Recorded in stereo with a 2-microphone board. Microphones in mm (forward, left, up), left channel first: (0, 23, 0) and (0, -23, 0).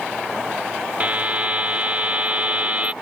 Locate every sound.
1.0 s a buzzer: 35° right (ahead or behind)